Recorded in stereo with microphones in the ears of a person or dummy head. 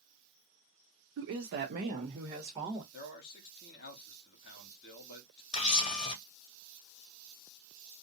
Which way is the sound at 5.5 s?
30° left (ahead or behind).